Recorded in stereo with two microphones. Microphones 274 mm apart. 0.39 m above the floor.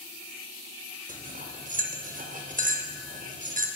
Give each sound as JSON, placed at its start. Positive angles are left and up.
{"t": 1.1, "sound": "cutlery clinking", "side_deg": -30, "distance_m": 0.6}